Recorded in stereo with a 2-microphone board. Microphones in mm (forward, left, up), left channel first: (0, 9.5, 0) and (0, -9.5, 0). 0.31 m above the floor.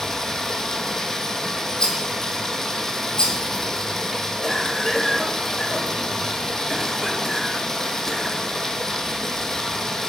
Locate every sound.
0.0 s running water: 20° left (ahead or behind), 0.9 m
1.8 s a rattle: 35° left (ahead or behind), 1.7 m
4.4 s a cough: 10° left (ahead or behind), 0.8 m